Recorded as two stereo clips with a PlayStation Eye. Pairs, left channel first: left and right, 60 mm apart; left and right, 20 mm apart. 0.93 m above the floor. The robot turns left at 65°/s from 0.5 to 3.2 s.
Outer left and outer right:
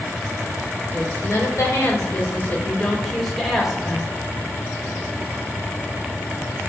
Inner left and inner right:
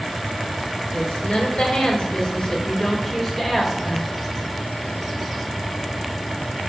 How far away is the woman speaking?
About 2 m.